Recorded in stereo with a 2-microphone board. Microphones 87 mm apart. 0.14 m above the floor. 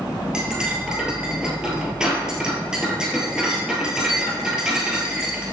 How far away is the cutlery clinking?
About 1.6 m.